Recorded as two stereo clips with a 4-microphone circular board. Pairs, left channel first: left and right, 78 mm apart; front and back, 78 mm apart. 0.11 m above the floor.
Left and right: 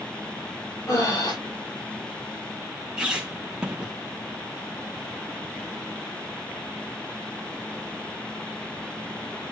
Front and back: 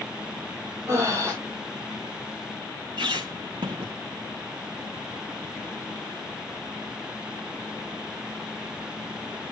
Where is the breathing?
130° left, 6 m.